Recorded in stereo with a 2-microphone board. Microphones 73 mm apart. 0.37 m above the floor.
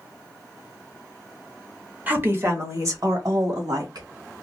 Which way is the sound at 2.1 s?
25° right (ahead or behind).